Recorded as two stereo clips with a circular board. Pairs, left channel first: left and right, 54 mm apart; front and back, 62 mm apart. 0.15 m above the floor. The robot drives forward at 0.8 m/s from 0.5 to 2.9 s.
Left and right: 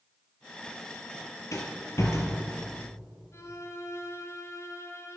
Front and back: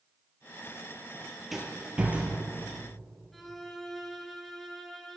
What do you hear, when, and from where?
1.5 s a rattle: 90° left, 1.5 m; by 2.4 s 120° left, 1.7 m
3.3 s a violin: 85° left, 1.0 m